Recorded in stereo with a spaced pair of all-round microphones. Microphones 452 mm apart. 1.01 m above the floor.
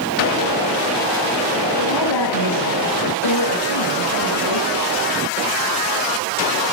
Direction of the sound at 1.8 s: 65° left (ahead or behind).